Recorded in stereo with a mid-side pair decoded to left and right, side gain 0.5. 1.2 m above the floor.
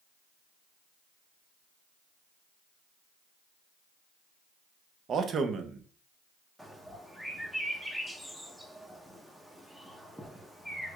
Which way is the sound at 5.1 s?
50° right.